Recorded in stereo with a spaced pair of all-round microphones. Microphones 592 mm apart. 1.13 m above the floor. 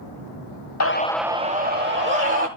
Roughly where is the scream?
Left.